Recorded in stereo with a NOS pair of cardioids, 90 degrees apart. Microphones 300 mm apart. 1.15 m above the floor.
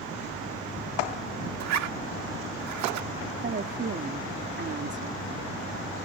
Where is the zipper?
65° right.